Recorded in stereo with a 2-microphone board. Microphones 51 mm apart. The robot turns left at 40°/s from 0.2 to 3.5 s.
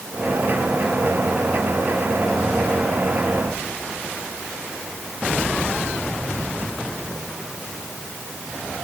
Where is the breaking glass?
No breaking glass in this recording.